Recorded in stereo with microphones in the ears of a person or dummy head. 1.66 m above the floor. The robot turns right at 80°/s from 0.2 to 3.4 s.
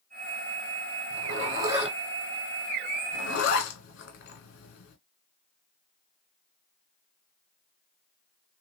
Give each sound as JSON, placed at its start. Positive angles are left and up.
{"t": 1.1, "sound": "a zipper", "side_deg": -65, "distance_m": 1.5}